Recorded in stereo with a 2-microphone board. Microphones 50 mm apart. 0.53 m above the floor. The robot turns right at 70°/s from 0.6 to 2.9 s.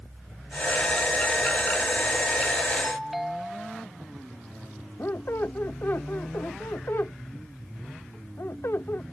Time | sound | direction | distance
2.8 | a doorbell | 5° right (ahead or behind) | ?
5.0 | a squeak | 55° left (ahead or behind) | ?